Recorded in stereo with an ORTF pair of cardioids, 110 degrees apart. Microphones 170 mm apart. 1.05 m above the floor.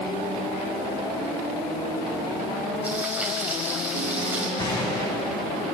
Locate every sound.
2.8 s frying: 10° right, 5.5 m
4.6 s a gunshot: 25° left, 5.5 m